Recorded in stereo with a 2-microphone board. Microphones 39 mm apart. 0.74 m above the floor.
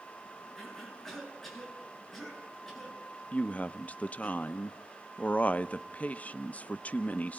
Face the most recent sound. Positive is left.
turn(degrees=35)  # may be behind; listen again after turning